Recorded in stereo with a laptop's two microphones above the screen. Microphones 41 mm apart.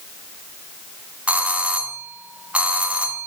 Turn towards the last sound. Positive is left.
turn(degrees=-30)  # may be behind; listen again after turning